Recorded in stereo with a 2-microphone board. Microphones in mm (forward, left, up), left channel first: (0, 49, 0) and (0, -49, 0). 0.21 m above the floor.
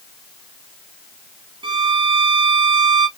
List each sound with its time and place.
1.6 s a violin: 60° right (ahead or behind), 0.8 m